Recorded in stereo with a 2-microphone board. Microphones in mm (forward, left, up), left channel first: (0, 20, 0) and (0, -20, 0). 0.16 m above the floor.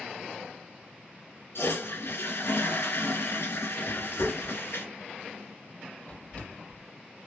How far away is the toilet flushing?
About 2.5 m.